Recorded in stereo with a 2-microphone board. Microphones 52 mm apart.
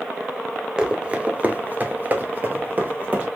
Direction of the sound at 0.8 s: 15° right (ahead or behind).